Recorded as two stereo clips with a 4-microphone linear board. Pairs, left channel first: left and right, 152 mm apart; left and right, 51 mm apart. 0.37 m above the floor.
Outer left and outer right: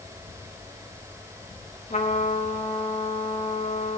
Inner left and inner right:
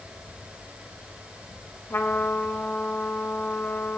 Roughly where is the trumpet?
Left.